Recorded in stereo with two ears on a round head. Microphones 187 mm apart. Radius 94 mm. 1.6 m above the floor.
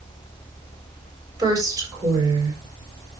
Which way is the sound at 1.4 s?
20° right (ahead or behind).